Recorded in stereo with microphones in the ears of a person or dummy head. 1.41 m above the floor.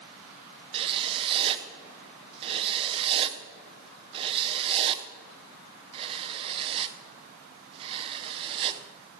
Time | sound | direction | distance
0.7 | writing | 30° right (ahead or behind) | 0.7 m